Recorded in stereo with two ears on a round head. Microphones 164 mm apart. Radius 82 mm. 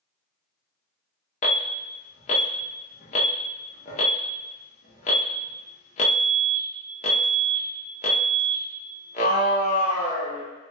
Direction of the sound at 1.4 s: 40° left (ahead or behind).